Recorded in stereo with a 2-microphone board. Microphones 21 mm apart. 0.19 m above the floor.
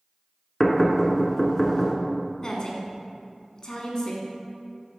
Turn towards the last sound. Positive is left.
turn(degrees=35)  # may be behind; listen again after turning